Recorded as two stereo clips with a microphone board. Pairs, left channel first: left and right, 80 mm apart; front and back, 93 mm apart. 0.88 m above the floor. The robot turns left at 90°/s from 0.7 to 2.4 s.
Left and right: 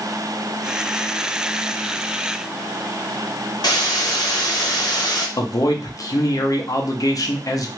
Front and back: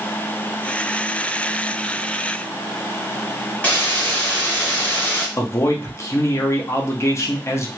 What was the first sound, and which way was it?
A hiss, 70° left.